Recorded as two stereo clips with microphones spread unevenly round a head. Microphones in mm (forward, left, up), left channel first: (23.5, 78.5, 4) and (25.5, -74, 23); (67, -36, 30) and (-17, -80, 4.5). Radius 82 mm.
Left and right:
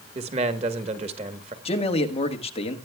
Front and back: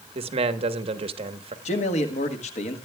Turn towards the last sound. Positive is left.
turn(degrees=40)